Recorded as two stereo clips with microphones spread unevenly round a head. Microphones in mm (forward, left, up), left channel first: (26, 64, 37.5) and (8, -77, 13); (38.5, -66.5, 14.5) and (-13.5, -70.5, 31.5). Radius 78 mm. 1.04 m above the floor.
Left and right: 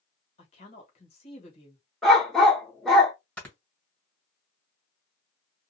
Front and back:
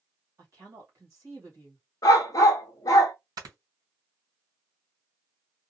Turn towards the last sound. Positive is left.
turn(degrees=170)